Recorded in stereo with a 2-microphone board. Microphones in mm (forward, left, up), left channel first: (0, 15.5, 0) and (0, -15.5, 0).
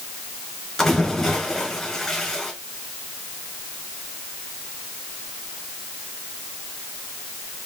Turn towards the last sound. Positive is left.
turn(degrees=20)  # may be behind; listen again after turning